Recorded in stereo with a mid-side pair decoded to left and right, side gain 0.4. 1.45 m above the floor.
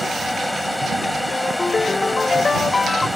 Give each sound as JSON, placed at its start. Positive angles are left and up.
{"t": 0.0, "sound": "a fan", "azimuth_deg": 10}
{"t": 1.3, "sound": "a ringtone", "azimuth_deg": 35}